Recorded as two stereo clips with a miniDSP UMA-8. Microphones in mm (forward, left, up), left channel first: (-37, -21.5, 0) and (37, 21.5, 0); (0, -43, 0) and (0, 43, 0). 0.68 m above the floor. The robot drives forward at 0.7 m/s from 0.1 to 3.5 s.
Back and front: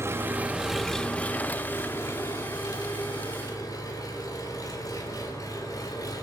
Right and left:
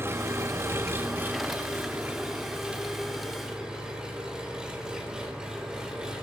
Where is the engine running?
55° left, 0.8 m; by 6.2 s 170° left, 2.5 m.